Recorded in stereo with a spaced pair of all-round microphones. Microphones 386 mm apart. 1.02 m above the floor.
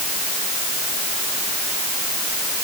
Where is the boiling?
No boiling in this recording.